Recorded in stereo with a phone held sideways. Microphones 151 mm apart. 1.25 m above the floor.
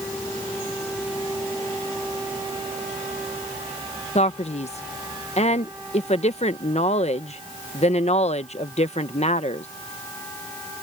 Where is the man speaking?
45° left (ahead or behind).